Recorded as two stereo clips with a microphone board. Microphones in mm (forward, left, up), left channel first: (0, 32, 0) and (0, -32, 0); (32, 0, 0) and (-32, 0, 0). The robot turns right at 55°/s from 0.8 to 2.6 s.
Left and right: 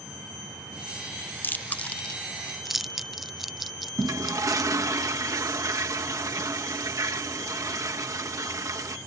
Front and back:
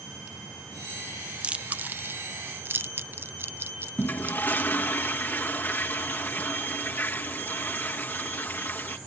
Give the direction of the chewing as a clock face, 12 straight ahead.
8 o'clock.